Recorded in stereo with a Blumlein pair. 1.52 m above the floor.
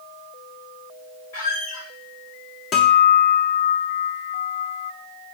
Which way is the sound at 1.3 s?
50° left.